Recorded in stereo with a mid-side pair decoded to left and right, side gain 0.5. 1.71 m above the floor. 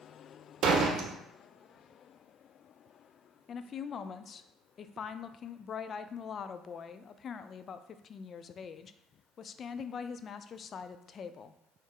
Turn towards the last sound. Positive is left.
turn(degrees=45)